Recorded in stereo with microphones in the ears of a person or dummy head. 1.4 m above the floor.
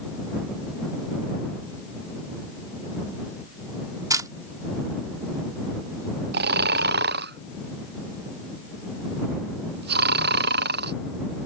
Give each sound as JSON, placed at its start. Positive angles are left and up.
{"t": 4.1, "sound": "a camera shutter", "side_deg": -20}
{"t": 6.3, "sound": "snoring", "side_deg": -55}